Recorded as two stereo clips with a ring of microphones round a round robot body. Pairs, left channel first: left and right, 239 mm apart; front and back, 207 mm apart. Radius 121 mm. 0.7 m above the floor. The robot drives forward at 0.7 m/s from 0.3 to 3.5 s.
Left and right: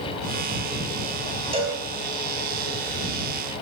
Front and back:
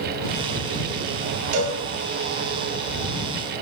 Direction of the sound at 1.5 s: 160° right.